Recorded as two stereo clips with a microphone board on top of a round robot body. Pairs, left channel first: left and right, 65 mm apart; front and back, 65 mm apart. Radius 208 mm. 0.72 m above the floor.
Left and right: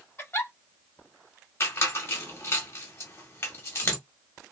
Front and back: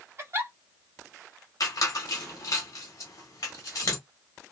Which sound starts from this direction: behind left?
A giggle, at 0.2 s.